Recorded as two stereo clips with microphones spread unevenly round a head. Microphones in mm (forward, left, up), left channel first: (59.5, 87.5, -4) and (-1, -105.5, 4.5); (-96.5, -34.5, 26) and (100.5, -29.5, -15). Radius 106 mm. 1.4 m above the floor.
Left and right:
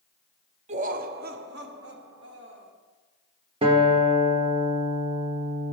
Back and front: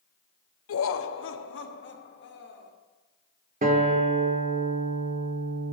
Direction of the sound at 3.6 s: 50° right.